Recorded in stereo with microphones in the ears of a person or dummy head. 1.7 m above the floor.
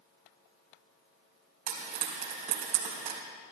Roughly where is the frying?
Right.